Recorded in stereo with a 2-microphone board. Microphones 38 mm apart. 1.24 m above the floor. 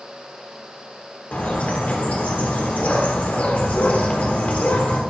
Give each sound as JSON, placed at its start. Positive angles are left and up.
{"t": 1.3, "sound": "a bird", "side_deg": 45, "distance_m": 1.3}